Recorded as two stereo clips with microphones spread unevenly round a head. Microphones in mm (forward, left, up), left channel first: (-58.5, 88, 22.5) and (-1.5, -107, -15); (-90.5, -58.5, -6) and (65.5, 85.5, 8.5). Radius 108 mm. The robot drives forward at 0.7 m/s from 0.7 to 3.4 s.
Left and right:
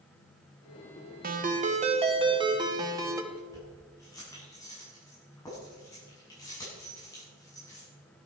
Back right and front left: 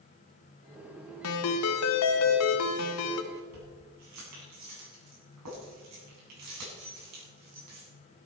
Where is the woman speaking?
No woman speaking in this recording.